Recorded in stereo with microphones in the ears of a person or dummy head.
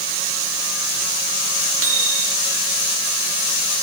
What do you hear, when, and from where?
1.8 s a microwave: 75° right (ahead or behind), 2.5 m